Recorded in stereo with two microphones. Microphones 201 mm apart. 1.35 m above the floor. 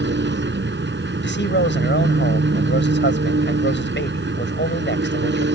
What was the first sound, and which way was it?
An engine running, 65° right (ahead or behind).